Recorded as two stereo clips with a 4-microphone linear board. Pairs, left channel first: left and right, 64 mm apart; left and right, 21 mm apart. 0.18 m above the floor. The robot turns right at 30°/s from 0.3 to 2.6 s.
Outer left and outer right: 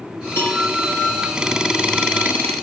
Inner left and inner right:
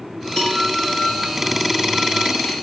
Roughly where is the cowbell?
Left.